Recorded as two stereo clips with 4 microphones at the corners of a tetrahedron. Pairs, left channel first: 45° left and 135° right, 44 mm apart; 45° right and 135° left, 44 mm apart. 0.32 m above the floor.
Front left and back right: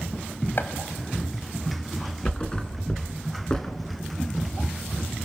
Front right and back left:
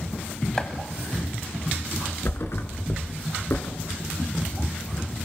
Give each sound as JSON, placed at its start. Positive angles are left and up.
{"t": 0.6, "sound": "chopping", "azimuth_deg": 25, "distance_m": 1.8}
{"t": 2.2, "sound": "a thud", "azimuth_deg": -25, "distance_m": 1.8}